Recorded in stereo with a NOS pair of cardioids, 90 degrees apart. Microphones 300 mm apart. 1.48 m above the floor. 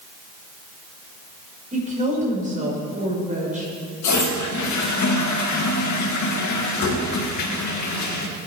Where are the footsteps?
I don't hear footsteps.